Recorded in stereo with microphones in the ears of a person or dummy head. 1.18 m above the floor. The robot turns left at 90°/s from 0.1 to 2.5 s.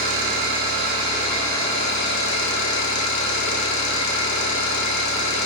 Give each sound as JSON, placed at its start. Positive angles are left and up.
{"t": 0.0, "sound": "an engine running", "azimuth_deg": -70, "distance_m": 1.1}